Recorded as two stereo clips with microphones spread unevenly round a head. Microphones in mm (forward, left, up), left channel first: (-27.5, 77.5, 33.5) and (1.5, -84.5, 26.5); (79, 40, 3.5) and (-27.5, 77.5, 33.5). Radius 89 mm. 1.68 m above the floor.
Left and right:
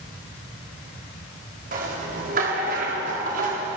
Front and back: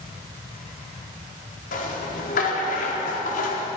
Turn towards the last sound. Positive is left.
turn(degrees=-35)